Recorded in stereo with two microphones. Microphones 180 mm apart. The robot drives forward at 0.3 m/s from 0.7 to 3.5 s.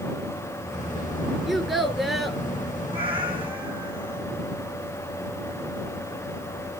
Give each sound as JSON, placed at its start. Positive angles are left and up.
{"t": 1.5, "sound": "a child speaking", "side_deg": 0, "distance_m": 2.5}
{"t": 2.9, "sound": "a cat meowing", "side_deg": -30, "distance_m": 2.5}